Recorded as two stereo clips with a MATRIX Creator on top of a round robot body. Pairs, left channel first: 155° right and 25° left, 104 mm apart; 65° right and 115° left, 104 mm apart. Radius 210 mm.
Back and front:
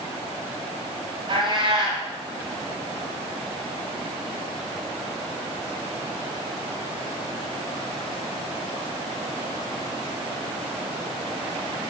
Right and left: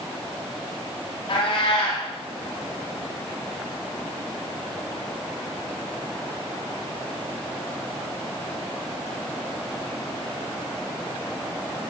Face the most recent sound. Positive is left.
turn(degrees=-20)